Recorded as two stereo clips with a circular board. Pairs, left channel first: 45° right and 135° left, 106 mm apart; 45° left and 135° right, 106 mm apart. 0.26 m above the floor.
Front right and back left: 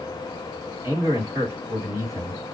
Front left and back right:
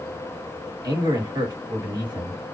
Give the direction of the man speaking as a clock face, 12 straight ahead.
6 o'clock.